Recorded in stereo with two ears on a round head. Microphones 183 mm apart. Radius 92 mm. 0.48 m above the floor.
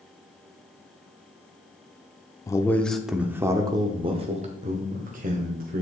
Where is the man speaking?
15° left (ahead or behind), 0.8 m; by 5.8 s 45° right (ahead or behind), 1.9 m.